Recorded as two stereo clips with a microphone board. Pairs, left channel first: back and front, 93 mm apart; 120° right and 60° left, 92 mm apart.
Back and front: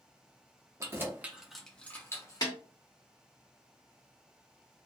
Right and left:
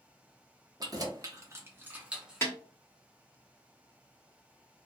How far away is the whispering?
No whispering in this recording.